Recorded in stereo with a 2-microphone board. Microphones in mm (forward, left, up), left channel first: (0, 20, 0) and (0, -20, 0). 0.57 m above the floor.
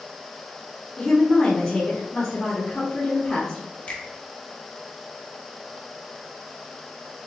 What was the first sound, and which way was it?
A woman speaking, 15° left (ahead or behind).